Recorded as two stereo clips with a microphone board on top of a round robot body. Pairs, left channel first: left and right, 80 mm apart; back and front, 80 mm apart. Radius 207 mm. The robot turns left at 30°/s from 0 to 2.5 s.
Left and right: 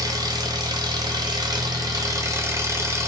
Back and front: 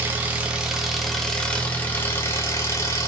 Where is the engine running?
60° right, 0.9 m; by 3.1 s 135° right, 0.9 m.